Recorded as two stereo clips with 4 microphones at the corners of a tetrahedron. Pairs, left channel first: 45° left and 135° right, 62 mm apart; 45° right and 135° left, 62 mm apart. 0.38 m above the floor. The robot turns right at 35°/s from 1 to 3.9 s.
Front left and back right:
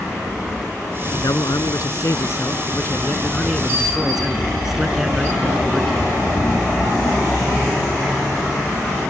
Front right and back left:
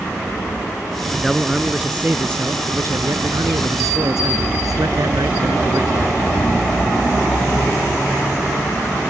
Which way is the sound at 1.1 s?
40° left.